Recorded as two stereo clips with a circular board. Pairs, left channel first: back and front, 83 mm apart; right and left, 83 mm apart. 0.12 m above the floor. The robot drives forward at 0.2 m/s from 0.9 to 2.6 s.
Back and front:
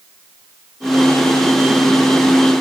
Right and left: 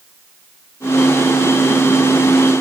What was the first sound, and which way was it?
Only background noise.